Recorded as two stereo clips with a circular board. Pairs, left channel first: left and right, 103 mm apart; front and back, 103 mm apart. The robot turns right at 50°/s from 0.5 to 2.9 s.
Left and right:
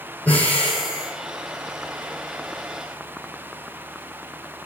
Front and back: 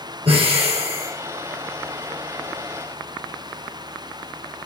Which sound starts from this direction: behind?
Breathing, at 0.2 s.